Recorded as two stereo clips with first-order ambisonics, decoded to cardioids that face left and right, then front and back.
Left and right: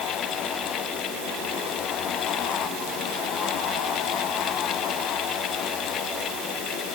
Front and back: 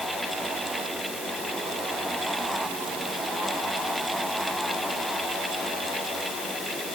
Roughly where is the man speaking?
I don't hear a man speaking.